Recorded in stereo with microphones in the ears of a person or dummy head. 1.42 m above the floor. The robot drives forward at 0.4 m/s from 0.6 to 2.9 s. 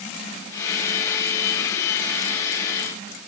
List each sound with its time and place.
Only background noise.